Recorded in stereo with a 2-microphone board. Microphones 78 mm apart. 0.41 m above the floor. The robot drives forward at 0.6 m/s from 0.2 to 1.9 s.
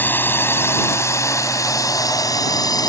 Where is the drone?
25° left (ahead or behind); by 2.9 s 55° left (ahead or behind).